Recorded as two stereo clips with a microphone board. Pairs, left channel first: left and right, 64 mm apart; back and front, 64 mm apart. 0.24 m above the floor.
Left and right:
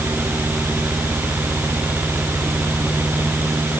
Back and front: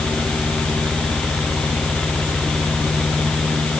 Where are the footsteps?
I don't hear footsteps.